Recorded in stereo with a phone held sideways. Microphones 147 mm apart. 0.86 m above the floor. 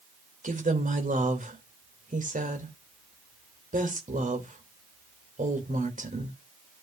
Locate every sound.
0.4 s a woman speaking: 65° right (ahead or behind), 2.5 m